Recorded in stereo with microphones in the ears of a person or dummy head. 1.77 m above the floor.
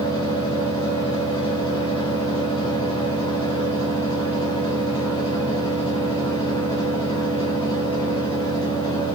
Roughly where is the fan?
Left.